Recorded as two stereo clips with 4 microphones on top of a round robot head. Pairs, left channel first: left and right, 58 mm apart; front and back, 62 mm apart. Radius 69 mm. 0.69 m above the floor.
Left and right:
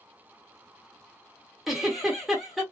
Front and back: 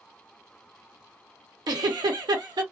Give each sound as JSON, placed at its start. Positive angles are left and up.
{"t": 1.7, "sound": "a giggle", "azimuth_deg": -175, "distance_m": 1.1}